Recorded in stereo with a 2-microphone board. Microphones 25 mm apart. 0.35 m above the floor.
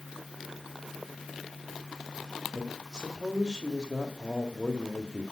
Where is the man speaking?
30° right (ahead or behind), 1.7 m.